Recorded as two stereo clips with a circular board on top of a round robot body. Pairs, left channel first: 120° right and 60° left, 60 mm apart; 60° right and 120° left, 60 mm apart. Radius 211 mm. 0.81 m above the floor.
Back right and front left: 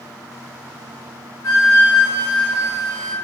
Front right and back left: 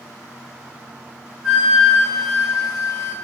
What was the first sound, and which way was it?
A flute, 155° right.